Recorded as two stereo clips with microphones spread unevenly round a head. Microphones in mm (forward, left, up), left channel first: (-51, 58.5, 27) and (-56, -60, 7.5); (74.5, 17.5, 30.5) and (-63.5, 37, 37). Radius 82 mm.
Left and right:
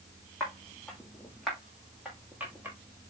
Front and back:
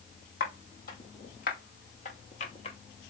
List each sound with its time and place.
0.4 s footsteps: 10° left, 2 m; by 2.8 s 15° right, 1.1 m